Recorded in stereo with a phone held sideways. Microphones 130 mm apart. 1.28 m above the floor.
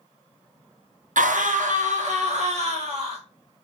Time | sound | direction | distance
1.2 | a scream | 80° right | 0.6 m